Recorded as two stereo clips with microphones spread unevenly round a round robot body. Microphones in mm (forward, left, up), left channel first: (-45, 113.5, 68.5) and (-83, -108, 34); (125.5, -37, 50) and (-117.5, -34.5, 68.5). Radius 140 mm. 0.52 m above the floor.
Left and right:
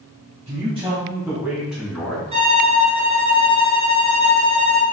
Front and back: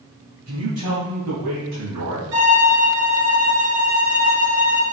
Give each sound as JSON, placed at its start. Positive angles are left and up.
{"t": 0.5, "sound": "a man speaking", "azimuth_deg": -160, "distance_m": 3.5}
{"t": 2.3, "sound": "a violin", "azimuth_deg": -165, "distance_m": 2.5}